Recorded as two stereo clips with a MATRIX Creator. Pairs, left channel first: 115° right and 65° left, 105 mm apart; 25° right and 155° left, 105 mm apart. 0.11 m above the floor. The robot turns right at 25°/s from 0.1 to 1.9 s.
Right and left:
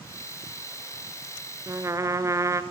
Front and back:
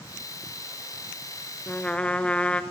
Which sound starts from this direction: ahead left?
A trumpet, at 1.7 s.